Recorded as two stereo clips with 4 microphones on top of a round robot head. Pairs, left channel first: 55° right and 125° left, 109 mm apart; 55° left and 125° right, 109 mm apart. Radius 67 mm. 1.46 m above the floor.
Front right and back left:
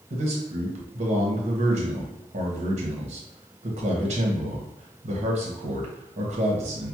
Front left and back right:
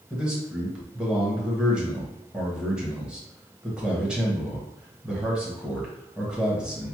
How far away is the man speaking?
About 1.2 m.